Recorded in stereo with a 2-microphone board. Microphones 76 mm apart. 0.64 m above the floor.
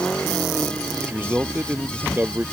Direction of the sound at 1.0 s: 25° right (ahead or behind).